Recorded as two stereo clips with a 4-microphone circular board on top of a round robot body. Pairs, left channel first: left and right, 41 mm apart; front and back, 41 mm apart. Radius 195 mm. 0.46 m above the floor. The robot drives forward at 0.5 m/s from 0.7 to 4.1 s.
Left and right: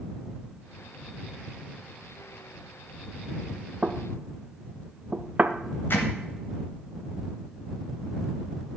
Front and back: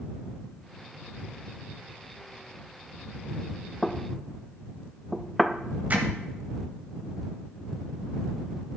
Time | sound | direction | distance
3.8 | knocking | 70° right | 0.8 m
5.9 | hammering | 125° left | 0.6 m